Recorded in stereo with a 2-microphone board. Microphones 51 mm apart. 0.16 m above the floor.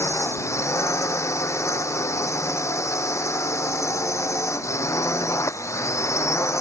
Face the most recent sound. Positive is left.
turn(degrees=70)  # may be behind; listen again after turning